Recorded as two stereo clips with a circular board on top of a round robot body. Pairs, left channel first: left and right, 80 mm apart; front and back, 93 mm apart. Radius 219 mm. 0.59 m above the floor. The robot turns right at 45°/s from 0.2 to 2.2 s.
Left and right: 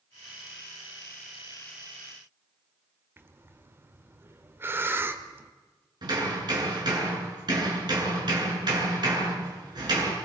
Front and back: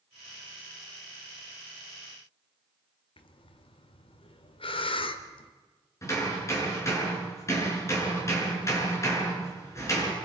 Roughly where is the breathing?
Ahead right.